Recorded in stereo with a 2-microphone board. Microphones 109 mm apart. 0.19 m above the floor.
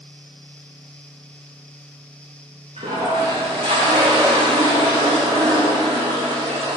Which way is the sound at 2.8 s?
70° right (ahead or behind).